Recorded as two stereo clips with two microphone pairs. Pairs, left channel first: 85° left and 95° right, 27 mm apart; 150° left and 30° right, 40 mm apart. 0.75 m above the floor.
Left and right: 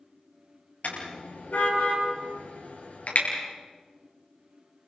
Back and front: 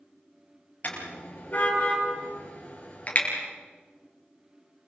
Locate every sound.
0.8 s a car horn: 105° left, 10 m; by 3.3 s 100° left, 8.5 m